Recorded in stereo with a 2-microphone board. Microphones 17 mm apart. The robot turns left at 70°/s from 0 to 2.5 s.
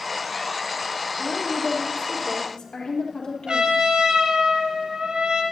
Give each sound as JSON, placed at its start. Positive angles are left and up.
{"t": 1.2, "sound": "a woman speaking", "azimuth_deg": -175, "distance_m": 4.0}
{"t": 3.5, "sound": "a trumpet", "side_deg": -65, "distance_m": 4.0}